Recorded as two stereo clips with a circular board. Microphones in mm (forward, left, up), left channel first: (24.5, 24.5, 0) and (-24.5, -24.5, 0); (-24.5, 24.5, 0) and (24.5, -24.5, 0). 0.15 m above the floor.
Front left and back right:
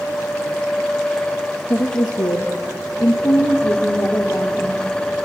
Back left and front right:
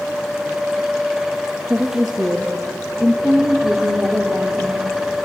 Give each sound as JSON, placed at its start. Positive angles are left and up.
{"t": 1.7, "sound": "a woman speaking", "azimuth_deg": 40, "distance_m": 2.5}